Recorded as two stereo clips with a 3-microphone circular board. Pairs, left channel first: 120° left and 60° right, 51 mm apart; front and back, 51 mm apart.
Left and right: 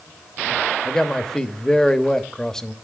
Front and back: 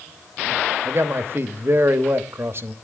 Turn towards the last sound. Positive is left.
turn(degrees=-165)